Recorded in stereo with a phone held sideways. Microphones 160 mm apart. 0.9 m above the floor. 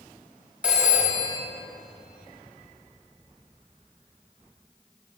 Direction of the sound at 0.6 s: 10° right (ahead or behind).